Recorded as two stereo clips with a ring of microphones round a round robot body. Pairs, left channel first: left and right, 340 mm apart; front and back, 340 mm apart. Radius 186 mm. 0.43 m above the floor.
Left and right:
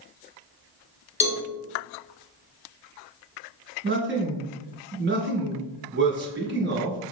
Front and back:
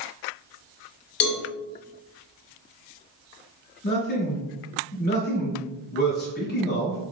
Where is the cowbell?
30° left, 1.3 m.